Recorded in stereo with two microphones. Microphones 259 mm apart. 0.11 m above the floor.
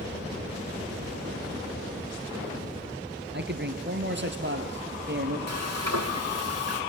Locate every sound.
3.3 s a man speaking: 45° right (ahead or behind), 1.8 m
5.5 s frying: 80° right, 2.5 m